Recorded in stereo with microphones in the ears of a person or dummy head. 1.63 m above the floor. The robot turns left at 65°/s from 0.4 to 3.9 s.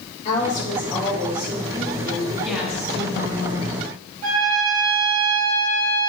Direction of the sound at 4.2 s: 40° right (ahead or behind).